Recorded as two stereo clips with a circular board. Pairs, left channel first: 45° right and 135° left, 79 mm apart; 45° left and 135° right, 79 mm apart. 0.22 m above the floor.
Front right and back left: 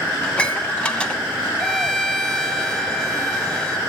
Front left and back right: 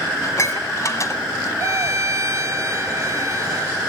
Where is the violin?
125° right, 1.5 m.